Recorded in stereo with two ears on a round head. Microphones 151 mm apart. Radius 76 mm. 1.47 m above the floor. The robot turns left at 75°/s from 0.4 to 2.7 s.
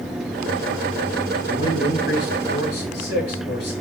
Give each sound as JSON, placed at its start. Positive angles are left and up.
{"t": 1.5, "sound": "a man speaking", "azimuth_deg": 160, "distance_m": 7.5}